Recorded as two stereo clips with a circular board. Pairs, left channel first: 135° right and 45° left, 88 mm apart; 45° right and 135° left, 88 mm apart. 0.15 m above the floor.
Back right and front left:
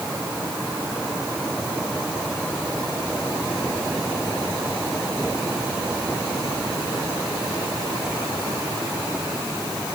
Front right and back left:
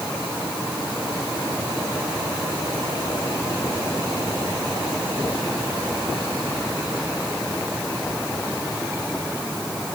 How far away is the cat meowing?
I don't hear a cat meowing.